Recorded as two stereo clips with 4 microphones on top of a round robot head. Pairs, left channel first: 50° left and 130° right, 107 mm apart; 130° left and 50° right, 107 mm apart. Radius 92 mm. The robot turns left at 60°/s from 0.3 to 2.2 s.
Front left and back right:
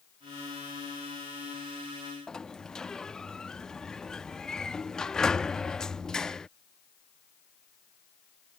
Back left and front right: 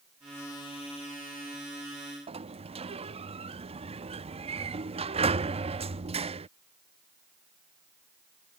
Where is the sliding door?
35° right.